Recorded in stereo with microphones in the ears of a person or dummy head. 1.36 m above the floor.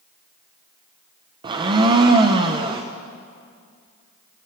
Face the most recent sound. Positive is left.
turn(degrees=-20)  # may be behind; listen again after turning